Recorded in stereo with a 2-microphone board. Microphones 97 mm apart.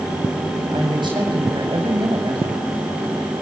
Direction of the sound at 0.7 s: 55° right (ahead or behind).